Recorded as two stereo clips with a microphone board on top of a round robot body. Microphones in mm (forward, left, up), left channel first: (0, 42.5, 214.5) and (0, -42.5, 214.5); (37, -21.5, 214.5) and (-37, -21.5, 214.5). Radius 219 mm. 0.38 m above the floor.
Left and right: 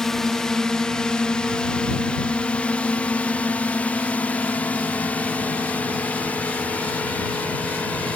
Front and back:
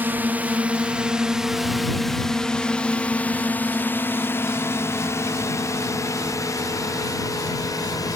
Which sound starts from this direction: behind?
A drone, at 0.0 s.